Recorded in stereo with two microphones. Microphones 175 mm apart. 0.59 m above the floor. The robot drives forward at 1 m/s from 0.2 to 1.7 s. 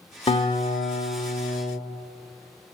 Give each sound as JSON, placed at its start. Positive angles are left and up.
{"t": 0.3, "sound": "a guitar", "side_deg": 35, "distance_m": 1.3}